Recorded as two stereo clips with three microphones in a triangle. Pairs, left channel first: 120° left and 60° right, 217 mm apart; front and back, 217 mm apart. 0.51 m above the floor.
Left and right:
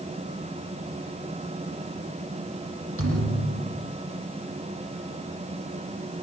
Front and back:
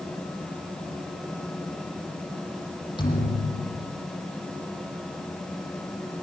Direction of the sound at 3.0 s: 70° right.